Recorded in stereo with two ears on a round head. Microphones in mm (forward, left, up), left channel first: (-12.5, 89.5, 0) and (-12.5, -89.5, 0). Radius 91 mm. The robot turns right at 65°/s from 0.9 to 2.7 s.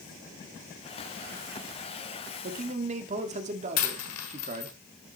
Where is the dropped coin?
90° left, 1.4 m.